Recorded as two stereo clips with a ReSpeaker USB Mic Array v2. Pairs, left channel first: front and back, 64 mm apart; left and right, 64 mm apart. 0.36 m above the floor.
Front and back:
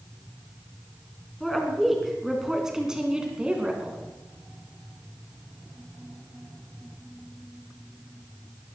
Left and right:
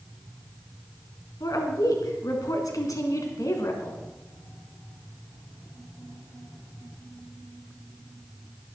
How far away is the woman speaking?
About 3.5 m.